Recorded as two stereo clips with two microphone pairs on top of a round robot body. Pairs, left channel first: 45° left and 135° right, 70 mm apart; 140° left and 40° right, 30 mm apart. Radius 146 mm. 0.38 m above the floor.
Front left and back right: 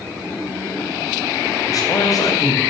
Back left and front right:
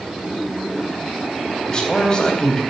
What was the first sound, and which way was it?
A man speaking, 75° left.